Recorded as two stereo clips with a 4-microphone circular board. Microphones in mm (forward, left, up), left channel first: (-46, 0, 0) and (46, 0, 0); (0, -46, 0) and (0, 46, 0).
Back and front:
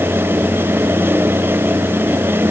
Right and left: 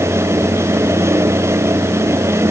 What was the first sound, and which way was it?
Only background noise.